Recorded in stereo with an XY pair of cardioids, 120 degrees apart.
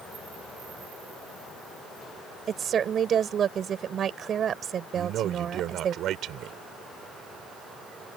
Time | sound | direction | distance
2.5 | a woman speaking | 45° right | ?
5.0 | a man speaking | 65° right | ?